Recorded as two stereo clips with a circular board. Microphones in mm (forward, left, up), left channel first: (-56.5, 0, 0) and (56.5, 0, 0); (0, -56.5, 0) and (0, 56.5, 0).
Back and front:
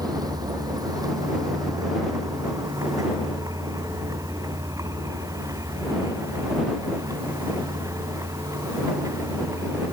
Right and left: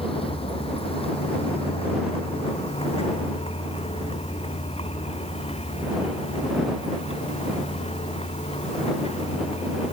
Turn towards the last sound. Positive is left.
turn(degrees=-60)